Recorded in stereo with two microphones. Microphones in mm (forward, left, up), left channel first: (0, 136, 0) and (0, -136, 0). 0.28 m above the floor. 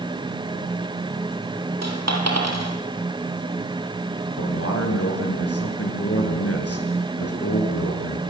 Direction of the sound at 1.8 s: 70° right (ahead or behind).